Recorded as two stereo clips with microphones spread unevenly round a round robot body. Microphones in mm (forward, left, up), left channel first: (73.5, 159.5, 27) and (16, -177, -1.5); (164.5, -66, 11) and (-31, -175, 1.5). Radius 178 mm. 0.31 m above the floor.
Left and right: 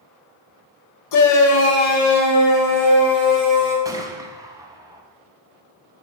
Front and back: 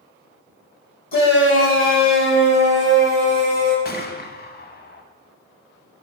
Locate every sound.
1.1 s a shout: 70° left, 1.3 m; by 3.8 s 10° right, 4 m
3.9 s a gunshot: 20° right, 1.1 m